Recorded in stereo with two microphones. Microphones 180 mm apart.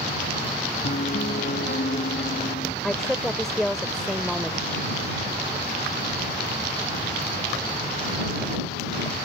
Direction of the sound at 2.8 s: Centre (ahead or behind).